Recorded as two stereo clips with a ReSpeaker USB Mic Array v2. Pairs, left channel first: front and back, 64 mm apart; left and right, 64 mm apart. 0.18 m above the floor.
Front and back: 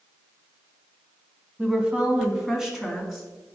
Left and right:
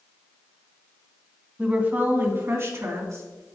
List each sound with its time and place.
1.6 s a woman speaking: 135° right, 1.5 m; by 3.2 s 85° right, 2 m